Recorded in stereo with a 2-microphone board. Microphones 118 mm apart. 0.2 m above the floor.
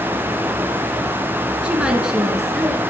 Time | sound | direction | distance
1.6 | a woman speaking | 10° right (ahead or behind) | 2.5 m